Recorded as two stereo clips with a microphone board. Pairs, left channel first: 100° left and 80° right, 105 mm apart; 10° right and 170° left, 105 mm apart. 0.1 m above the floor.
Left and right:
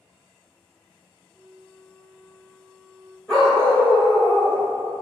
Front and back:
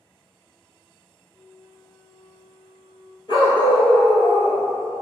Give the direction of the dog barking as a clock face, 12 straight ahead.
11 o'clock.